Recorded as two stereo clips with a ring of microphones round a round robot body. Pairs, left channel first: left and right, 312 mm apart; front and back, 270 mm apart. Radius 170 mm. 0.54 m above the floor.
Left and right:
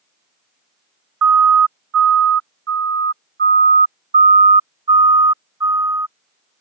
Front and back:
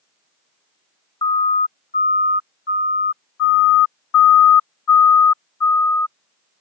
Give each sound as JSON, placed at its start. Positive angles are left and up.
{"t": 1.2, "sound": "a siren", "azimuth_deg": -75}